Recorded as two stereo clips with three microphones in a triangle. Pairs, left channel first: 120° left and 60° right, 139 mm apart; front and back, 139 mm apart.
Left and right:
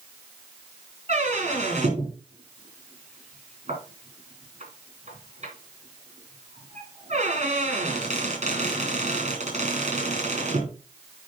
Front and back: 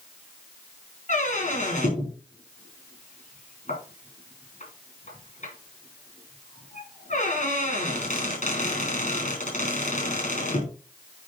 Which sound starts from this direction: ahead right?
A squeak, at 1.1 s.